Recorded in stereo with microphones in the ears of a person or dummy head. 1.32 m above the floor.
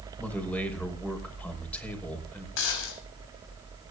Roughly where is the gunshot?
Left.